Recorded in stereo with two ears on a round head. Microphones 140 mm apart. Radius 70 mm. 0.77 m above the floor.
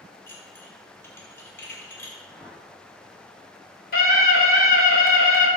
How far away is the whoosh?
About 2 m.